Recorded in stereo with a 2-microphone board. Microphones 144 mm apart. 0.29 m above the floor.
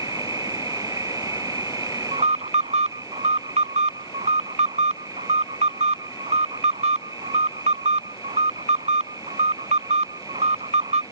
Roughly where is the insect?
Right.